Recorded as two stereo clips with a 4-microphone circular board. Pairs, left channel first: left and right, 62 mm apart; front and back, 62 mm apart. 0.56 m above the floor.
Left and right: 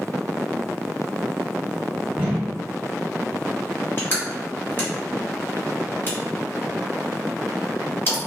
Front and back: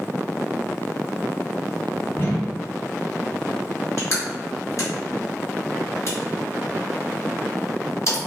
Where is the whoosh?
25° right, 1.5 m.